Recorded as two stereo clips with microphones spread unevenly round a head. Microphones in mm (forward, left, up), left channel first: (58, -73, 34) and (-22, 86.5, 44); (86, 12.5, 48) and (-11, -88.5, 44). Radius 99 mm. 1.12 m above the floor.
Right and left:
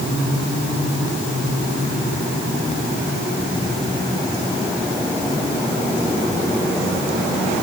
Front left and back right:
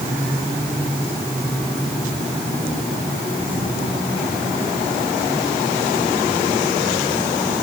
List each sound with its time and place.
Only background noise.